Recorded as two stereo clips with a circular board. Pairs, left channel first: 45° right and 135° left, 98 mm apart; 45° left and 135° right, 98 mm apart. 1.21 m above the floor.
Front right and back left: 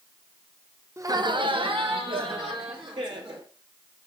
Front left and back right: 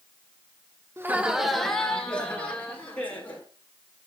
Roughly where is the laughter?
Behind.